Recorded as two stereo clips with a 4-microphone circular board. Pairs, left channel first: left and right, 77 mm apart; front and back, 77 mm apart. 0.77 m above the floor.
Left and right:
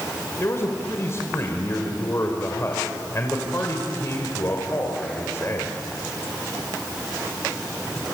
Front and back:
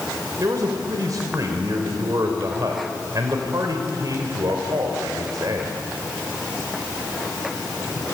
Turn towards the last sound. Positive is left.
turn(degrees=140)